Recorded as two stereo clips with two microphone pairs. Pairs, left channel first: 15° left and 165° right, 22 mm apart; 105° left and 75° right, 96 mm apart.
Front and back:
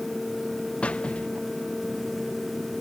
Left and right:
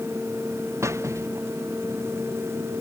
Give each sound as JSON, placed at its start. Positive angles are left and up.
{"t": 0.8, "sound": "a squeak", "azimuth_deg": -15}